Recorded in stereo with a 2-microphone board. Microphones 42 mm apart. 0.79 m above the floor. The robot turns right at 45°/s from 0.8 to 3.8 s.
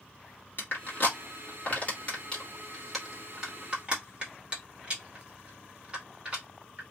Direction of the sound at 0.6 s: 50° left (ahead or behind).